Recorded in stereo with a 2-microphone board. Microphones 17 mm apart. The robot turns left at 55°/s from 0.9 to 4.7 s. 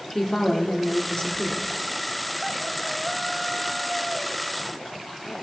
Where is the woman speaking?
140° left, 2 m; by 1.7 s 95° left, 2 m.